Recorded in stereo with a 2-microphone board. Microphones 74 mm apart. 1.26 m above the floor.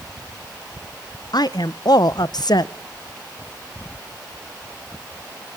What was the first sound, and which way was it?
A woman speaking, 60° left (ahead or behind).